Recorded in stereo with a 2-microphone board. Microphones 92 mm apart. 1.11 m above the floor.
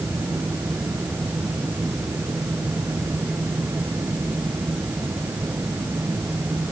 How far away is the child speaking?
No child speaking in this recording.